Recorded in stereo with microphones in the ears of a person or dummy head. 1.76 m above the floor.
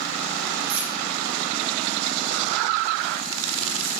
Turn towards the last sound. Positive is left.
turn(degrees=-55)  # may be behind; listen again after turning